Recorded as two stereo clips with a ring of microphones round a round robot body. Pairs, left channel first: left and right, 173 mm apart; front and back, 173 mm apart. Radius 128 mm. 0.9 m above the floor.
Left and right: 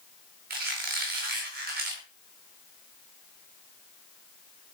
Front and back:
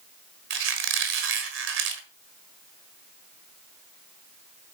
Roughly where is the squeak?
Behind right.